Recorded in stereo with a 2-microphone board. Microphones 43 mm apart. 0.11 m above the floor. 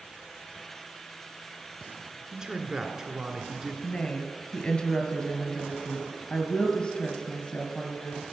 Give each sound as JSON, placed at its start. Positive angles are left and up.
{"t": 2.3, "sound": "a man speaking", "side_deg": -15, "distance_m": 1.3}
{"t": 3.8, "sound": "a woman speaking", "side_deg": 25, "distance_m": 1.5}